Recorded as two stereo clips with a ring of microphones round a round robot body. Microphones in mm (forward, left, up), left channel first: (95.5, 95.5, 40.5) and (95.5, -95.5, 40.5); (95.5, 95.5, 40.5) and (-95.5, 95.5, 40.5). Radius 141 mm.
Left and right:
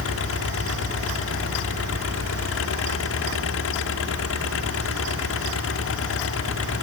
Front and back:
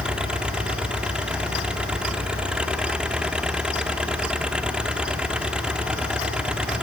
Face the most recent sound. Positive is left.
turn(degrees=95)